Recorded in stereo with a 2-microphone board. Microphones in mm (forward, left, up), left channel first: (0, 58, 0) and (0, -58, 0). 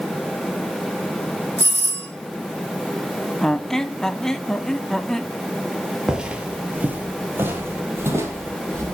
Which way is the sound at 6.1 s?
5° right (ahead or behind).